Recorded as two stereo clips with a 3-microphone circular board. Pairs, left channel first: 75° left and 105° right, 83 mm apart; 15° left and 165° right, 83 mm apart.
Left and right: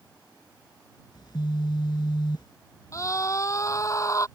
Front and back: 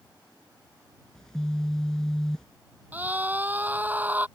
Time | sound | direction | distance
1.1 | a phone buzzing | 100° left | ?
2.9 | a scream | 125° left | ?